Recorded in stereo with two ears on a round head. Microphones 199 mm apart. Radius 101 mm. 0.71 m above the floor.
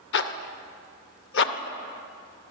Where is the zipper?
50° left (ahead or behind), 0.6 m.